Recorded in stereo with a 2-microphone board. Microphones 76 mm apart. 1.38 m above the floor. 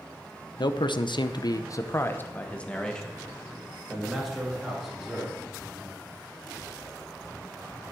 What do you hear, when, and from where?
0.6 s a man speaking: 70° left (ahead or behind), 0.9 m; by 5.3 s 5° right (ahead or behind), 3 m